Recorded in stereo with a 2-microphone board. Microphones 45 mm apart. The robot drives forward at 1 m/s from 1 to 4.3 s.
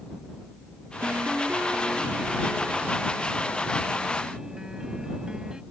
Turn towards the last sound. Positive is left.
turn(degrees=-15)  # may be behind; listen again after turning